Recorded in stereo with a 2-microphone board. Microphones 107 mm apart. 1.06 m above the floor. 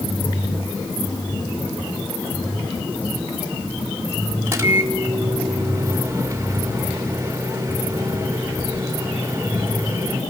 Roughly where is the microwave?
Right.